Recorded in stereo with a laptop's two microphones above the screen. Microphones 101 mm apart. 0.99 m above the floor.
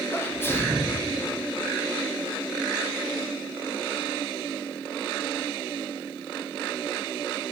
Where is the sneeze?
20° left (ahead or behind), 0.6 m.